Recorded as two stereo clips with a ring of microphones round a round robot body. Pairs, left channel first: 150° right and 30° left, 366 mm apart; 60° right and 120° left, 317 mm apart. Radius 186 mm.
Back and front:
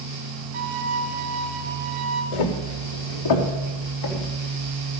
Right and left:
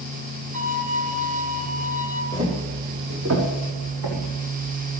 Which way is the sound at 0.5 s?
50° left.